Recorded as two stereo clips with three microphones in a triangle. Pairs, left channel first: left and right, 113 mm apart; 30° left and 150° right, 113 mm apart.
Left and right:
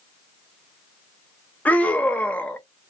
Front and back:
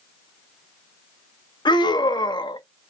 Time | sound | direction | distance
1.6 | a scream | 20° left | 0.6 m